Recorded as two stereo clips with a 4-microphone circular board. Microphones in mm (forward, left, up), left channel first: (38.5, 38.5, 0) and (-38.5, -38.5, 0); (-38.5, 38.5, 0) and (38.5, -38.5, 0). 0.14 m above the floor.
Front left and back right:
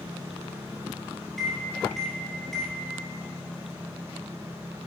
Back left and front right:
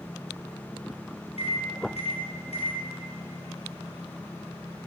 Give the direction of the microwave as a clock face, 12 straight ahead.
8 o'clock.